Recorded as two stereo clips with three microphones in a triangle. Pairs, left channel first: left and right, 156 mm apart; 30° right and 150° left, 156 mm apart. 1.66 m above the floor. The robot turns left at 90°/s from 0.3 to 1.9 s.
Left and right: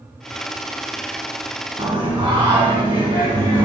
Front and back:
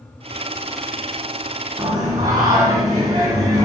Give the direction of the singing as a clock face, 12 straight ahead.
4 o'clock.